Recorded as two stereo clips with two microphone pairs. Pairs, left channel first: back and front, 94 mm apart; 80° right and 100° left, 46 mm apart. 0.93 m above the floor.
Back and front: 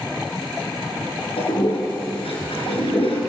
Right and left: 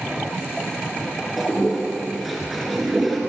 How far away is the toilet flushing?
About 5.5 m.